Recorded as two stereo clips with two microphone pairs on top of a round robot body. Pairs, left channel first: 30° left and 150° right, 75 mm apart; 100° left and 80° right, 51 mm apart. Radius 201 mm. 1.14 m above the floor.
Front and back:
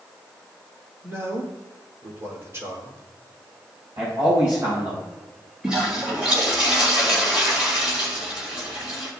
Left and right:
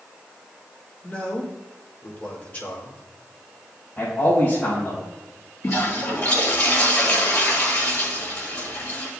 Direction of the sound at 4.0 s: 150° left.